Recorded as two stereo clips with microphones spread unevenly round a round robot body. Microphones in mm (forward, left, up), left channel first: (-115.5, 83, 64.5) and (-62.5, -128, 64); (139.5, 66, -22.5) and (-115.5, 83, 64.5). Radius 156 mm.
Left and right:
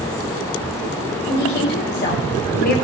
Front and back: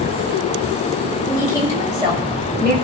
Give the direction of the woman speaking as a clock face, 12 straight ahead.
9 o'clock.